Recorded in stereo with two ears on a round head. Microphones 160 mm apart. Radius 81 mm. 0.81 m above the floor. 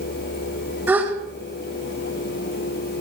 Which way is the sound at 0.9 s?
10° right (ahead or behind).